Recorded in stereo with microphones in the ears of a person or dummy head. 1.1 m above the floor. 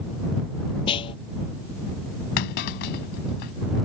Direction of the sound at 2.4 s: 50° left (ahead or behind).